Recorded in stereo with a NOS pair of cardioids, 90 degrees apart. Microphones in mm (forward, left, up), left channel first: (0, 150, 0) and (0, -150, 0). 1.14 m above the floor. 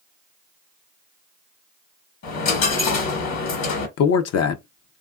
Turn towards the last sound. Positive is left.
turn(degrees=55)